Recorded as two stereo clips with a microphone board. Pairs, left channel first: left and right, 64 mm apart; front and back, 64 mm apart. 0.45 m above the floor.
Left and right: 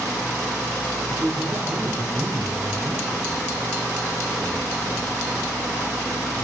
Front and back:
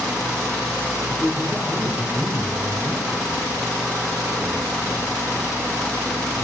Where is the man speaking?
85° right, 1.0 m; by 5.1 s 90° right, 6 m.